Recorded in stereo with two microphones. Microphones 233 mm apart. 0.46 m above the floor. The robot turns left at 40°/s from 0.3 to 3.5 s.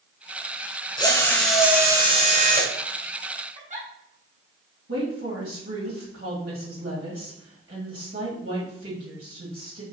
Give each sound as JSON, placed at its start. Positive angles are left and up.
{"t": 1.0, "sound": "a drill", "azimuth_deg": 20, "distance_m": 1.6}
{"t": 3.5, "sound": "a giggle", "side_deg": -30, "distance_m": 1.8}
{"t": 4.9, "sound": "a woman speaking", "side_deg": -65, "distance_m": 2.0}